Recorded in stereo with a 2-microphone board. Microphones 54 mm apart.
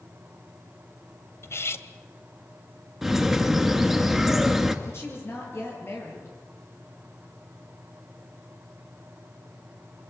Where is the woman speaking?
55° left (ahead or behind), 8 m.